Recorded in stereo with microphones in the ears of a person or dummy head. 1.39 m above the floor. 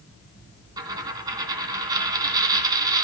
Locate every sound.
0.8 s a dropped coin: 25° right (ahead or behind), 2.5 m